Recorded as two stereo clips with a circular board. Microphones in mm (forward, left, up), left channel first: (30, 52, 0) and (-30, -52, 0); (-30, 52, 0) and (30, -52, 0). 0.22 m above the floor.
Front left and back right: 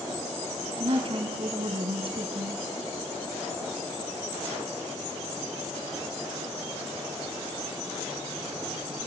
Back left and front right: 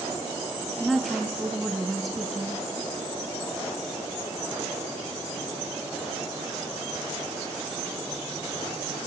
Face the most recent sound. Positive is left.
turn(degrees=-150)